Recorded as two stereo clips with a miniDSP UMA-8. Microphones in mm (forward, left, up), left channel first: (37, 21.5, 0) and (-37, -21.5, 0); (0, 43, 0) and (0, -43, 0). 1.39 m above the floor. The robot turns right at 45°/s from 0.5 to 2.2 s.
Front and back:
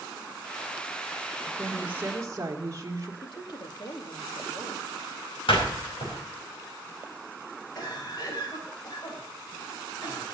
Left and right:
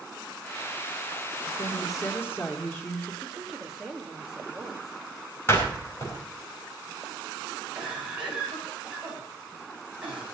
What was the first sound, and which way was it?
A woman speaking, 130° left.